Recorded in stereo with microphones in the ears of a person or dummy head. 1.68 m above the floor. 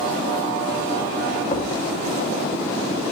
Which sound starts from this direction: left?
A thud, at 1.5 s.